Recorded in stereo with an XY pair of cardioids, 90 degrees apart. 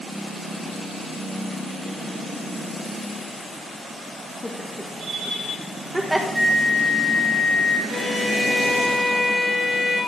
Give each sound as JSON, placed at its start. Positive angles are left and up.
{"t": 4.4, "sound": "laughter", "azimuth_deg": 20, "distance_m": 1.6}
{"t": 6.3, "sound": "a flute", "azimuth_deg": -10, "distance_m": 3.0}
{"t": 7.9, "sound": "a violin", "azimuth_deg": 60, "distance_m": 4.5}